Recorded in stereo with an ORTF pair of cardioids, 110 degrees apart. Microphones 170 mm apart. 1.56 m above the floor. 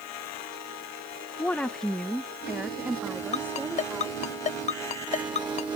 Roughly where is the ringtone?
Ahead left.